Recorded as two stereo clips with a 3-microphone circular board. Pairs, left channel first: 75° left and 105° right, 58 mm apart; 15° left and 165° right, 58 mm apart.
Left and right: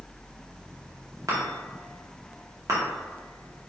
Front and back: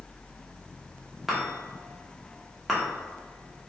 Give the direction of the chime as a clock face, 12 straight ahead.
3 o'clock.